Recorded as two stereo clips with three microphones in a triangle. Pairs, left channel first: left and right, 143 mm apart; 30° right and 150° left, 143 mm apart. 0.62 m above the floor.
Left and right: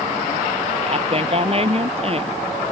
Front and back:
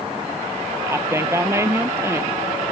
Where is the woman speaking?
140° right.